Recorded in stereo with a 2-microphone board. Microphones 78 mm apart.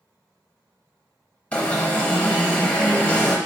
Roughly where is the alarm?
Centre.